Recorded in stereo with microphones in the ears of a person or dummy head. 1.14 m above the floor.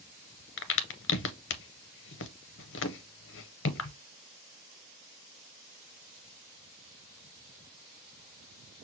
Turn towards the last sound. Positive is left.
turn(degrees=55)  # may be behind; listen again after turning